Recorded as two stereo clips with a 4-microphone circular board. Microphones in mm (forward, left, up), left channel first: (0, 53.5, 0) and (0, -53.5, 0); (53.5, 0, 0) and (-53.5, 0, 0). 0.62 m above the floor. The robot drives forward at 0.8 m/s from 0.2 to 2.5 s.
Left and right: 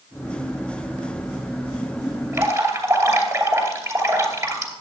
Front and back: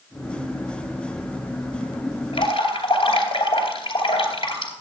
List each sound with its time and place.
2.3 s dripping: 30° right, 2.5 m